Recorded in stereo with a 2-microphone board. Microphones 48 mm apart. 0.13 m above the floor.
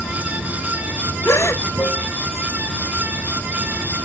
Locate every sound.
0.0 s running water: 75° left (ahead or behind)
1.2 s a gasp: 70° left (ahead or behind)